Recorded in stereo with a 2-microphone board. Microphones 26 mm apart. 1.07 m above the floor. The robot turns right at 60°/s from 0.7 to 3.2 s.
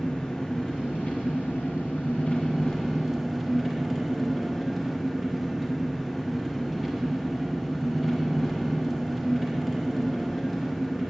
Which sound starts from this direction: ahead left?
An engine running, at 0.0 s.